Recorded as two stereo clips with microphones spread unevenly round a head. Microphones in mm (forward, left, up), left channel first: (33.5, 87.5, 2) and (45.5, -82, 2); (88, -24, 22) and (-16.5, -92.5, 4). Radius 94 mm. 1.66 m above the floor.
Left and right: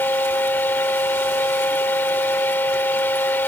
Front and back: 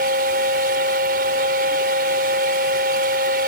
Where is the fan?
175° left.